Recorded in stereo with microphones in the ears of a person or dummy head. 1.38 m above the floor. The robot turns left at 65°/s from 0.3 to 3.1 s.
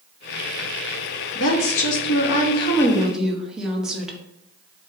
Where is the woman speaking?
115° left, 0.9 m; by 4.2 s straight ahead, 0.9 m.